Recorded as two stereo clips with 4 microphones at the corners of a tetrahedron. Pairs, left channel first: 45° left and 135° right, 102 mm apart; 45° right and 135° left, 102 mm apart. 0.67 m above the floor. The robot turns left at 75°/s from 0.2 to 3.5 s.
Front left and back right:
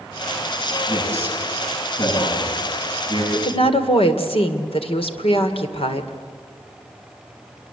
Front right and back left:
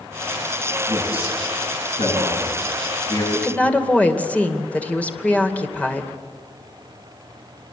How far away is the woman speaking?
About 2.5 m.